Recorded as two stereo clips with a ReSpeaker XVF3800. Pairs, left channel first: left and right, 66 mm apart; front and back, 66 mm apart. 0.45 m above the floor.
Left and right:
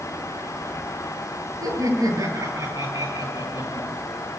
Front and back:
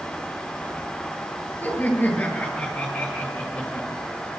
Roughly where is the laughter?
Ahead right.